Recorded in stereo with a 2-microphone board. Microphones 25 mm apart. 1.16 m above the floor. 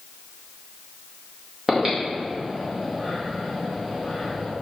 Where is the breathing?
20° right (ahead or behind), 2.0 m.